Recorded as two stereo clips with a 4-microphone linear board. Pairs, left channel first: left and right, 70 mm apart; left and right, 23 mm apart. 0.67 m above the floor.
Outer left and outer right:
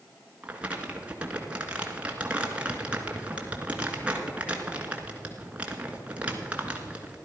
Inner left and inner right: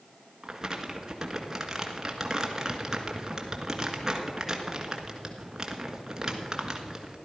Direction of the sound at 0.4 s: 20° right (ahead or behind).